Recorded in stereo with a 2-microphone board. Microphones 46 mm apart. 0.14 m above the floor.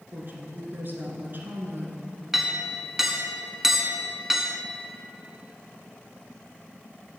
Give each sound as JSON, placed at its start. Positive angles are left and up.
{"t": 0.1, "sound": "a woman speaking", "side_deg": -45, "distance_m": 1.6}
{"t": 2.3, "sound": "a clink", "side_deg": -10, "distance_m": 0.7}